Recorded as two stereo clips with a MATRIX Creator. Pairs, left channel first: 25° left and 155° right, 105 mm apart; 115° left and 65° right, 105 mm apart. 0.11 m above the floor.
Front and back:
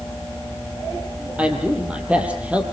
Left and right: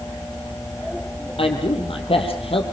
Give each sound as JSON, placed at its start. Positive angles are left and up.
{"t": 1.4, "sound": "a man speaking", "azimuth_deg": 125, "distance_m": 4.0}